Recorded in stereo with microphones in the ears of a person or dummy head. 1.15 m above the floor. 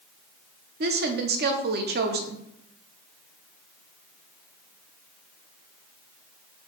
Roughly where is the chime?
No chime in this recording.